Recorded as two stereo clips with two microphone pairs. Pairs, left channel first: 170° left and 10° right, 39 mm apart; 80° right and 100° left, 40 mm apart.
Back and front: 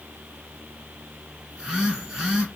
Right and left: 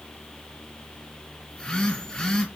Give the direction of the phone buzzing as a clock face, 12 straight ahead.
2 o'clock.